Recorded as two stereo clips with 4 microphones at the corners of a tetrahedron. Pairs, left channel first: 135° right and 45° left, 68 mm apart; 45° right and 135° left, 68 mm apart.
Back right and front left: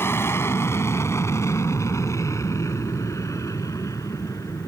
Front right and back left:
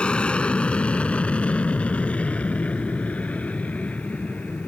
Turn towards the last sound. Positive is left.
turn(degrees=-115)